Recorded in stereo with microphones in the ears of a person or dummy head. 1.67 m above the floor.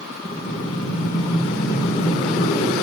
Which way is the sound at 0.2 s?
35° left (ahead or behind).